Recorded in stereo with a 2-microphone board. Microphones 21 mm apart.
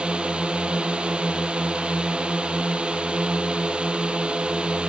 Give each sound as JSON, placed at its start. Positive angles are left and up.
{"t": 0.0, "sound": "a drone", "side_deg": -60}